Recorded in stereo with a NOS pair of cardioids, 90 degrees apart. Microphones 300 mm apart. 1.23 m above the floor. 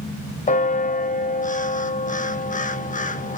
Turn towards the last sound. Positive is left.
turn(degrees=25)